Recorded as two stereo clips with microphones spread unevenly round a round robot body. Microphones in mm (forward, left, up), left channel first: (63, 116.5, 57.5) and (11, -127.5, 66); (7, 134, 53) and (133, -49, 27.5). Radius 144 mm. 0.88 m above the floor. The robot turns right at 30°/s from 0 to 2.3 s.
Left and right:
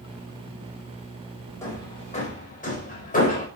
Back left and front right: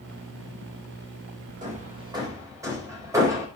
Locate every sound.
1.6 s hammering: straight ahead, 4.5 m; by 3.5 s 20° left, 4.5 m